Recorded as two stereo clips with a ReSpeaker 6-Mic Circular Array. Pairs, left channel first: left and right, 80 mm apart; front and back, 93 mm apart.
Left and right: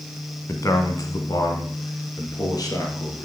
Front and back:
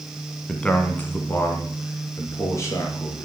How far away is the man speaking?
About 1.3 m.